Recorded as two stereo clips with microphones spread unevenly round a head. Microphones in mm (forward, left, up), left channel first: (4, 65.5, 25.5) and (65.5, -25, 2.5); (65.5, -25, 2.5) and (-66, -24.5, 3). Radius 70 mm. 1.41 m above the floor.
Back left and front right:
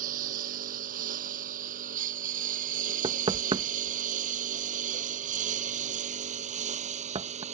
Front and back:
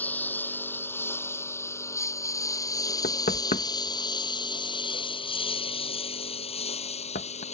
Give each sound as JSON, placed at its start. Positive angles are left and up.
{"t": 0.0, "sound": "a lawn mower", "azimuth_deg": -75}
{"t": 3.0, "sound": "knocking", "azimuth_deg": -10}